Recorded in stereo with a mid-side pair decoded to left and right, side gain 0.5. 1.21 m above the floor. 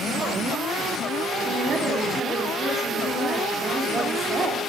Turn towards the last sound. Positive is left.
turn(degrees=-35)